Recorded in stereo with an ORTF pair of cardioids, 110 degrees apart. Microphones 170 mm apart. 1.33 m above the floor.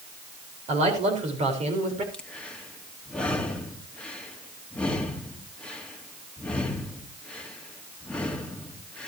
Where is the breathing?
5° left, 2 m.